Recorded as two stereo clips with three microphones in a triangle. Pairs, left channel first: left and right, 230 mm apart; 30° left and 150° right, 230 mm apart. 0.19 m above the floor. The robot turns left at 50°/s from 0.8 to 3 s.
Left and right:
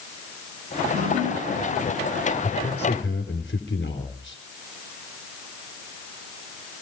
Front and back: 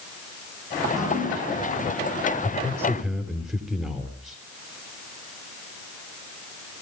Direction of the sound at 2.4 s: 160° left.